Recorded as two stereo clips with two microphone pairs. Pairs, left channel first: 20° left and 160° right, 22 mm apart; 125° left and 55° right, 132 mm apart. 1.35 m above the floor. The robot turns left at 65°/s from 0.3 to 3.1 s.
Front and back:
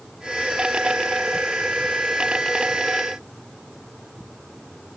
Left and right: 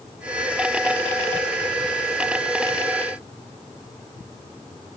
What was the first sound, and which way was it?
Only background noise.